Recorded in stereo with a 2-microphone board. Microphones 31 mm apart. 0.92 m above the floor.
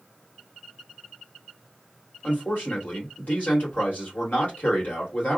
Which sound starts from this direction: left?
A man speaking, at 2.2 s.